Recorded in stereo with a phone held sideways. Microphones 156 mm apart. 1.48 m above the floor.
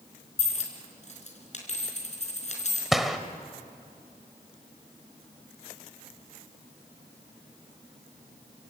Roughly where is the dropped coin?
Left.